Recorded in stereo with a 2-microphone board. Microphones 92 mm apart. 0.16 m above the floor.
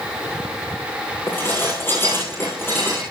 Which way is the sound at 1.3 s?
25° left (ahead or behind).